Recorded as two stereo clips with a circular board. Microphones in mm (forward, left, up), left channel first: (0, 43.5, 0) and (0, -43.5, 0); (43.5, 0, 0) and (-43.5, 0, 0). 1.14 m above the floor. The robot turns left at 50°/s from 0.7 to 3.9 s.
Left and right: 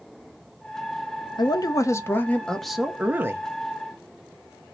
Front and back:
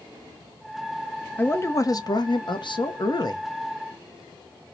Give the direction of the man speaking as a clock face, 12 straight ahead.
10 o'clock.